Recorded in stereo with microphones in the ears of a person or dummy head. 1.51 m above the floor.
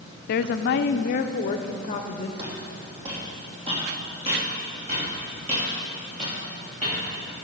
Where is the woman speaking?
55° left (ahead or behind), 0.5 m; by 2.3 s 35° left (ahead or behind), 1.1 m.